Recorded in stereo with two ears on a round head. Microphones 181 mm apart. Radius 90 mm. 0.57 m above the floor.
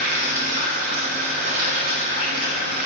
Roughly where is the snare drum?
I don't hear a snare drum.